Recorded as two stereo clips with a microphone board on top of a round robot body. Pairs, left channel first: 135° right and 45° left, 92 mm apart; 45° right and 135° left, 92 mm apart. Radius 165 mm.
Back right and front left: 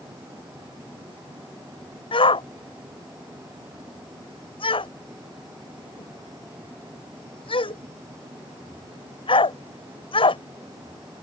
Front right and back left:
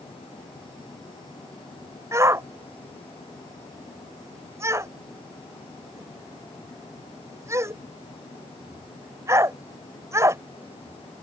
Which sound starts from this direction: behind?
A shout, at 2.1 s.